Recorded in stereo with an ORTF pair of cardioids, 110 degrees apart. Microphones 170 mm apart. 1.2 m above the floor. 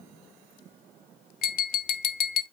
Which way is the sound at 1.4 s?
60° left.